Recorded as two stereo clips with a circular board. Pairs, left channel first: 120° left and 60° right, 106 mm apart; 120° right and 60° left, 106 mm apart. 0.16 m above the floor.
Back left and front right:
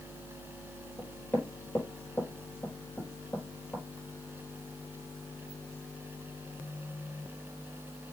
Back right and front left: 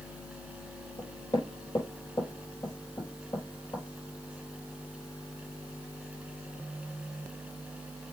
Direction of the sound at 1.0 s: 165° right.